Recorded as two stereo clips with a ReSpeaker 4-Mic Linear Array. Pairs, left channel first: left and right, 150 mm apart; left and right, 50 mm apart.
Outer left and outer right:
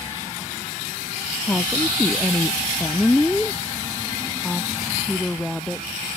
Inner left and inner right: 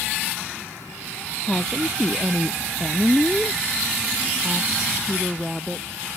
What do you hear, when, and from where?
1.4 s a woman speaking: 10° left (ahead or behind); by 6.0 s centre (ahead or behind)